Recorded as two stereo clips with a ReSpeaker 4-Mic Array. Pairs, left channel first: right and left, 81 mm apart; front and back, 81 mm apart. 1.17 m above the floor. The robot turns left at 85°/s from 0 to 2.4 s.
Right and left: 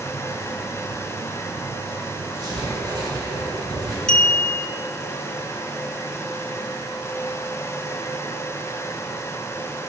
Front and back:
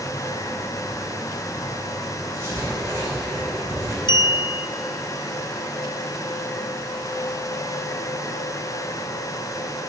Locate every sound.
2.3 s writing: 130° left, 3.5 m; by 4.0 s 125° left, 3.5 m
4.1 s a clink: 10° right, 0.6 m